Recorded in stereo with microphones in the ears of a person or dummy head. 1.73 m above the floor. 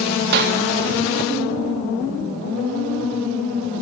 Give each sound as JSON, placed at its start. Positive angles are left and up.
{"t": 0.3, "sound": "a clap", "side_deg": -55, "distance_m": 2.0}